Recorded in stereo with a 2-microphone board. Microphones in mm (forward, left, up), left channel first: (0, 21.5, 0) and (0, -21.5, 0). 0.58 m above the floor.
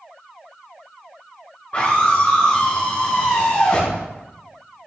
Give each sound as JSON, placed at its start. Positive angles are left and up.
{"t": 1.7, "sound": "a scream", "side_deg": 30, "distance_m": 5.0}